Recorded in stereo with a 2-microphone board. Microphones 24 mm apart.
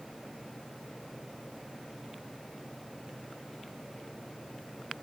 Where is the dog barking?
I don't hear a dog barking.